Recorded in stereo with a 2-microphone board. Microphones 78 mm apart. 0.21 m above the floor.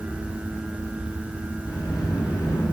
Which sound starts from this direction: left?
A sliding door, at 1.7 s.